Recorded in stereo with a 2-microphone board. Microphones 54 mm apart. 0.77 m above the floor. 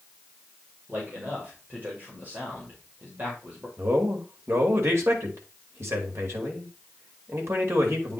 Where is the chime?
I don't hear a chime.